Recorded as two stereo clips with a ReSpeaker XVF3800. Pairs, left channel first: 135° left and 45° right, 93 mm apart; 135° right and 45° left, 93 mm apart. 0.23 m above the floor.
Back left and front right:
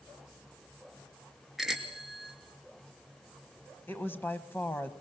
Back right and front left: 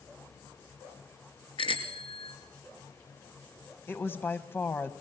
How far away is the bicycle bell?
About 2.5 m.